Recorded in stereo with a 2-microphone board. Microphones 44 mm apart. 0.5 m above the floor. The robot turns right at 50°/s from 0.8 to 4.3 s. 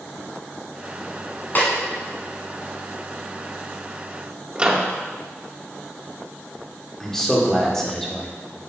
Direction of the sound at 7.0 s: 10° left (ahead or behind).